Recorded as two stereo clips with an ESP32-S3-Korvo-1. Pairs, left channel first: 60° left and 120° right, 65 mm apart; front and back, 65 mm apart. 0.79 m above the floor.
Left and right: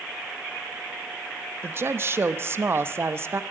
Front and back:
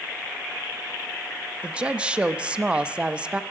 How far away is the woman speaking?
About 0.7 m.